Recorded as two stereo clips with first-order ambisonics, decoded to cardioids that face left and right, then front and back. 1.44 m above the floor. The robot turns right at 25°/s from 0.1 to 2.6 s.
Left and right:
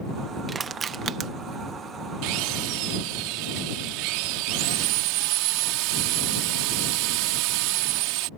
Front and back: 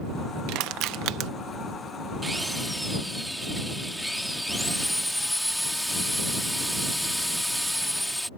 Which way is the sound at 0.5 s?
160° right.